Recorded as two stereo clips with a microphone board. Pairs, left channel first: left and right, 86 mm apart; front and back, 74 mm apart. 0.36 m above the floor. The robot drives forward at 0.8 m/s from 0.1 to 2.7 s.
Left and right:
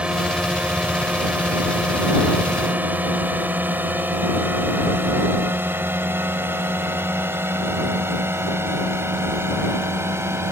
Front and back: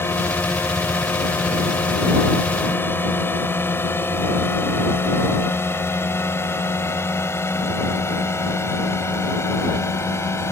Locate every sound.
0.0 s a drone: 20° right; by 10.5 s 40° right